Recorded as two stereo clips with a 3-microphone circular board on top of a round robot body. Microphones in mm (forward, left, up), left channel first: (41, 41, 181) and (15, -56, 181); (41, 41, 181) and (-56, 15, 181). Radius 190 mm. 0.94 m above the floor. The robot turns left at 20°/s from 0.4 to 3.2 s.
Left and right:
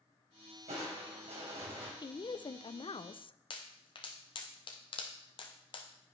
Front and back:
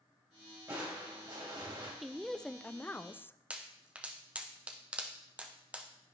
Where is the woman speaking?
105° left, 0.6 m; by 3.4 s 80° left, 0.6 m.